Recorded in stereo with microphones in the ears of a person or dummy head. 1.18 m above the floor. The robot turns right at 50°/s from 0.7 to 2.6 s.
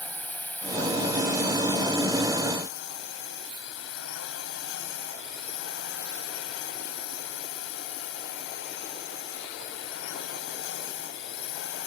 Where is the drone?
15° left; by 11.9 s 110° left.